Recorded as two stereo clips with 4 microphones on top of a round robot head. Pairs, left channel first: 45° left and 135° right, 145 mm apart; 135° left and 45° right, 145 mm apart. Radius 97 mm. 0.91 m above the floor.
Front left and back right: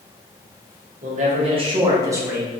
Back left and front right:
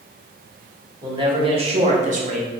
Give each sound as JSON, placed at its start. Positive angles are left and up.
{"t": 1.0, "sound": "a man speaking", "azimuth_deg": -105, "distance_m": 1.3}